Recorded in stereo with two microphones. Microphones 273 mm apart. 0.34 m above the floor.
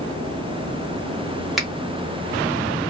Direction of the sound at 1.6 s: Centre (ahead or behind).